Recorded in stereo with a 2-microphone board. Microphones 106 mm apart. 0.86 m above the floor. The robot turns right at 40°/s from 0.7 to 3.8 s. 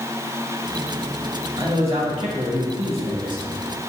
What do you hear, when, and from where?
1.6 s a man speaking: 130° right, 1.4 m; by 3.4 s 55° right, 1.4 m